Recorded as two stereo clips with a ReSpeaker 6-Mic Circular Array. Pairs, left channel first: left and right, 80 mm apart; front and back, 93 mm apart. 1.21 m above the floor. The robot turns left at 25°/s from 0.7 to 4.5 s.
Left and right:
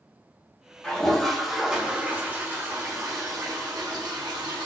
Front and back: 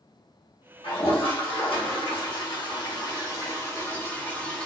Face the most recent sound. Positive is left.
turn(degrees=-80)